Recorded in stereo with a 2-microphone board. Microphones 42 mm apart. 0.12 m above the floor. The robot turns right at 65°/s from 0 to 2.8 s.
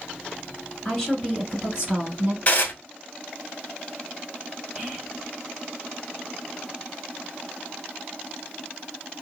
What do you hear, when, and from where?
0.8 s a woman speaking: 150° left, 1.9 m; by 2.4 s 110° right, 1.9 m
2.5 s dishes clattering: 30° left (ahead or behind), 1.0 m; by 2.7 s 40° left (ahead or behind), 1.0 m
4.8 s whispering: 20° right (ahead or behind), 1.1 m